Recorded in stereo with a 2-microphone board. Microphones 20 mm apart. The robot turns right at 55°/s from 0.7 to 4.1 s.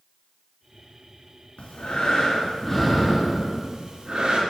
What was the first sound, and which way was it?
Breathing, 95° left.